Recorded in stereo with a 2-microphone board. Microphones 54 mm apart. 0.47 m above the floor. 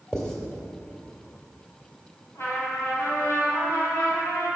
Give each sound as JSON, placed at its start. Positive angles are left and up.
{"t": 0.1, "sound": "writing", "side_deg": 10, "distance_m": 1.7}
{"t": 2.4, "sound": "a trumpet", "side_deg": 60, "distance_m": 2.5}